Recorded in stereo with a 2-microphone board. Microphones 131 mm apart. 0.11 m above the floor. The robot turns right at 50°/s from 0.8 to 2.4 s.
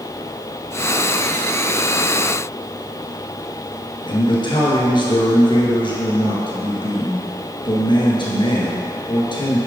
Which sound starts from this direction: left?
A man speaking, at 4.1 s.